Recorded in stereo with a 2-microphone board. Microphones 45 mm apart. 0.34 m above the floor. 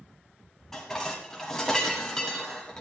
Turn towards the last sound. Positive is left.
turn(degrees=10)  # may be behind; listen again after turning